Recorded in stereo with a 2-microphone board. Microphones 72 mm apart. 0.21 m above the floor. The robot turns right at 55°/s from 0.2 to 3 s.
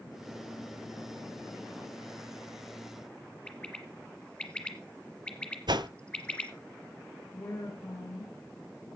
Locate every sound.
3.5 s a bird: 15° left (ahead or behind), 1.8 m
5.7 s a whoosh: 85° right, 0.7 m
7.3 s a woman speaking: 40° left (ahead or behind), 4 m